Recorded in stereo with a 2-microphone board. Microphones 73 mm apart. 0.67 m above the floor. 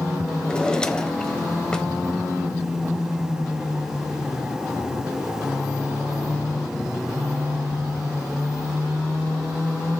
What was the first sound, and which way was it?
A drawer, 10° left (ahead or behind).